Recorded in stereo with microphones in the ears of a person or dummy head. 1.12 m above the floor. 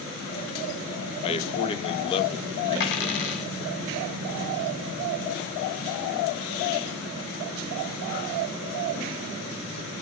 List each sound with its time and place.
1.2 s a man speaking: 30° left (ahead or behind), 1.1 m; by 3.4 s 20° left (ahead or behind), 2 m
2.8 s a dropped coin: 65° left (ahead or behind), 2 m